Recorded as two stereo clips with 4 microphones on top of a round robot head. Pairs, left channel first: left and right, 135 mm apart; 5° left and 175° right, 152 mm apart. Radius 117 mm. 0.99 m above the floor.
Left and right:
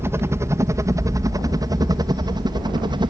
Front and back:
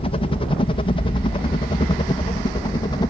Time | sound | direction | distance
0.0 | a helicopter | 25° right | ?